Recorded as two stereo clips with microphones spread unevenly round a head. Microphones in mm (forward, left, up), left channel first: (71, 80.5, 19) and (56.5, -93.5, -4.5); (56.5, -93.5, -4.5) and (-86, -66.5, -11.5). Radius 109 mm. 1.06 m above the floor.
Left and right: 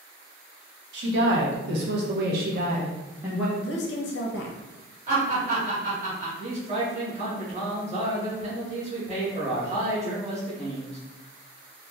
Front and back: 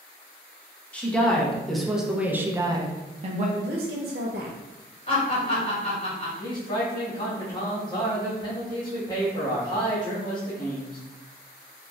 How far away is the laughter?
About 2.0 m.